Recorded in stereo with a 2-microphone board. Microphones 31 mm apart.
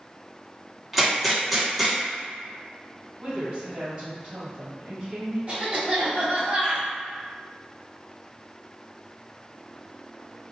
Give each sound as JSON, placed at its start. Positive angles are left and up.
{"t": 0.9, "sound": "a gunshot", "side_deg": 0, "distance_m": 0.9}
{"t": 3.2, "sound": "a woman speaking", "side_deg": -40, "distance_m": 1.7}
{"t": 5.5, "sound": "a cough", "side_deg": -35, "distance_m": 1.2}